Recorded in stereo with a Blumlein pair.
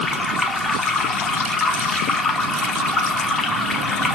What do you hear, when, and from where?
0.0 s running water: 10° left, 0.8 m